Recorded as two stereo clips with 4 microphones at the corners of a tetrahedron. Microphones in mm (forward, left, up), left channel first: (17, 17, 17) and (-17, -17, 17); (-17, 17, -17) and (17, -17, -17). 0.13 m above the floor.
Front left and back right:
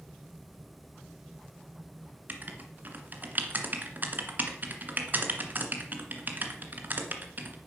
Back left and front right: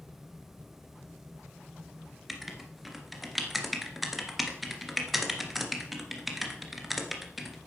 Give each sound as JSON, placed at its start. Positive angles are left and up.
{"t": 2.3, "sound": "writing", "azimuth_deg": -130, "distance_m": 2.0}